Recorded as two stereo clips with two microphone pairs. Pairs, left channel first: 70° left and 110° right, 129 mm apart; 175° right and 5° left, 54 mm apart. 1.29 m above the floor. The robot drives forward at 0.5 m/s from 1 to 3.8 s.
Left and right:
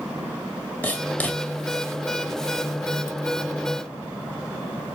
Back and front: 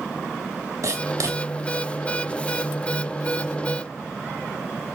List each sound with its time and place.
0.8 s writing: 5° right, 1.9 m